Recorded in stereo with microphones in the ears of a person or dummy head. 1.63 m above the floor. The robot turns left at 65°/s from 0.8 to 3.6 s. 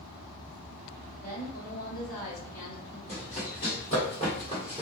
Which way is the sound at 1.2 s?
155° left.